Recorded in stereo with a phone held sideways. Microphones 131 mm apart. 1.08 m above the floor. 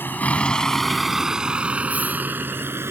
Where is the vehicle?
15° left (ahead or behind); by 2.9 s 20° right (ahead or behind).